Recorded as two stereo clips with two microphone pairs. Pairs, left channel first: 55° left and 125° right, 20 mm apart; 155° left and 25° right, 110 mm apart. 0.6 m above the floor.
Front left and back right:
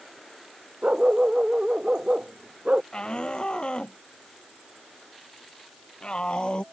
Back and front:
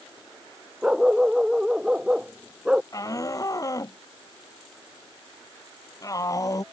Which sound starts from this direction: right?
A dog barking, at 0.8 s.